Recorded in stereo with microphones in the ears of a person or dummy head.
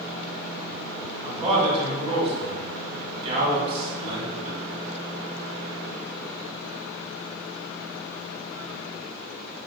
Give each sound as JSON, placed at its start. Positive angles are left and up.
{"t": 1.2, "sound": "a man speaking", "side_deg": -35, "distance_m": 3.0}